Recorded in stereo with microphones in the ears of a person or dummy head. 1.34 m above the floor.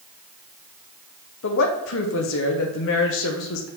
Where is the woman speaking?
65° left (ahead or behind), 0.9 m.